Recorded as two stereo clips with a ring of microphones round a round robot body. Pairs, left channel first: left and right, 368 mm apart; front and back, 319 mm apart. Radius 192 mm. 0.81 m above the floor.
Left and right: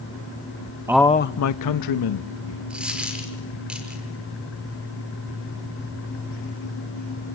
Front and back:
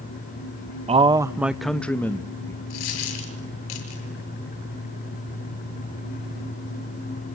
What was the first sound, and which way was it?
A man speaking, 155° right.